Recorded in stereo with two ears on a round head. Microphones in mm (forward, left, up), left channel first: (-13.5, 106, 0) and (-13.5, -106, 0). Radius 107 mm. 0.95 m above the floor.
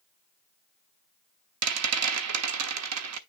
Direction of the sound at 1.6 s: 75° right (ahead or behind).